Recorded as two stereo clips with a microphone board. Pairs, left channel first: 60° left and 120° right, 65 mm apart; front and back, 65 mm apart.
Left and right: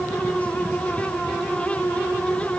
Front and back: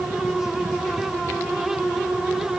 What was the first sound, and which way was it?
Only background noise.